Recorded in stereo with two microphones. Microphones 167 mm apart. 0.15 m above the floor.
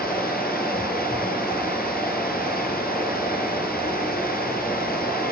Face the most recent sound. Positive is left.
turn(degrees=65)  # may be behind; listen again after turning